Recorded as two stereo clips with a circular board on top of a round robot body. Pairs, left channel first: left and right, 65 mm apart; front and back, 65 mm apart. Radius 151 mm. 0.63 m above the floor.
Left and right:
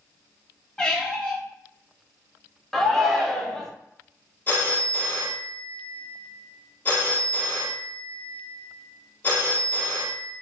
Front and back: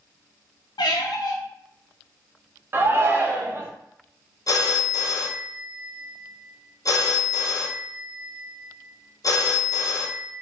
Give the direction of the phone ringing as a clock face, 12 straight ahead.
11 o'clock.